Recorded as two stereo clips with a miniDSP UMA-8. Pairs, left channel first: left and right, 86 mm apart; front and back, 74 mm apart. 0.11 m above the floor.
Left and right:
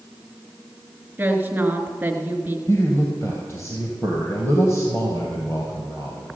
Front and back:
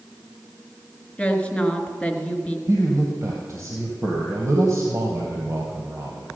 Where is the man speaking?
140° left, 2.5 m.